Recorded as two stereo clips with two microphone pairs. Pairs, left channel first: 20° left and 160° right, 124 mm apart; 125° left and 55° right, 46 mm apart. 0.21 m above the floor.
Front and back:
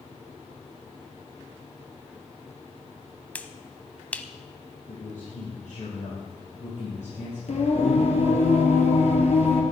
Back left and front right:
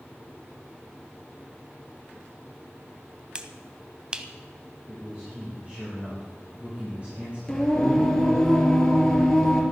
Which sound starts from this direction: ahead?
A man speaking, at 4.9 s.